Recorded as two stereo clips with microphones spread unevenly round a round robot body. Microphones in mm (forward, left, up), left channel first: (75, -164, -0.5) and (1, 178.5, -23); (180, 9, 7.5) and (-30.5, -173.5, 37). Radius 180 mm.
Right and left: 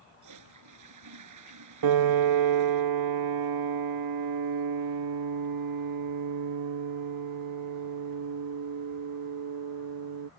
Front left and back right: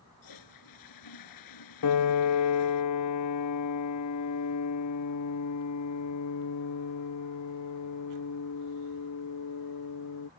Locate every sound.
0.2 s a toilet flushing: 65° left
1.8 s a piano: 75° left